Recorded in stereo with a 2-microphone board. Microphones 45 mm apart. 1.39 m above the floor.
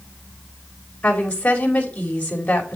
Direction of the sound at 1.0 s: 30° left (ahead or behind).